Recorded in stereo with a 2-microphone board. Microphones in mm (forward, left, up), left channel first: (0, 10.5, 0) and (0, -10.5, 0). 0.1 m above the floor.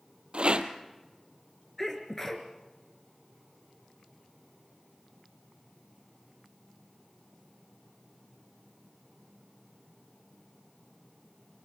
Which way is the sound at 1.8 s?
15° left (ahead or behind).